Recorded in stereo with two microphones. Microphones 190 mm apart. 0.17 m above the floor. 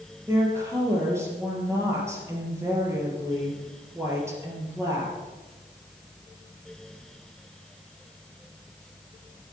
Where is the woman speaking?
15° right (ahead or behind), 4 m.